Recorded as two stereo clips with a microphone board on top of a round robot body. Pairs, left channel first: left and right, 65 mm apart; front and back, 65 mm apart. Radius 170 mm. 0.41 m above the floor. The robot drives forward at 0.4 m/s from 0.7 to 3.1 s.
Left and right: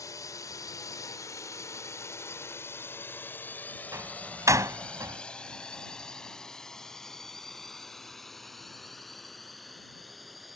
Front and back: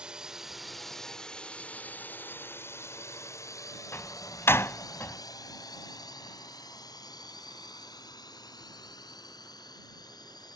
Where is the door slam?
50° right.